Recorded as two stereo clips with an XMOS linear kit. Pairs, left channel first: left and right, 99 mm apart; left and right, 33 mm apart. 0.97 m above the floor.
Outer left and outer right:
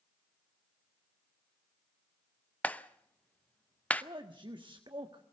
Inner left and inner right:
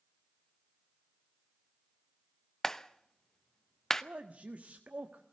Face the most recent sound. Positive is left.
turn(degrees=-50)  # may be behind; listen again after turning